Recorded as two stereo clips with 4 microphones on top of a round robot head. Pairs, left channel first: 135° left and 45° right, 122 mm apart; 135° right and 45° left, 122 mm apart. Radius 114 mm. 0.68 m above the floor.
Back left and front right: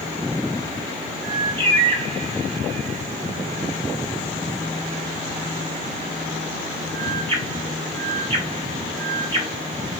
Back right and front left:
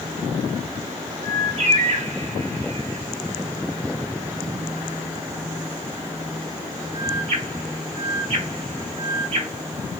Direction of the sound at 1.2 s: 10° left.